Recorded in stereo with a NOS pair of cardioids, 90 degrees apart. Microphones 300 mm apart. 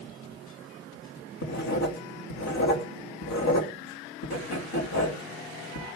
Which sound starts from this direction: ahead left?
Writing, at 1.4 s.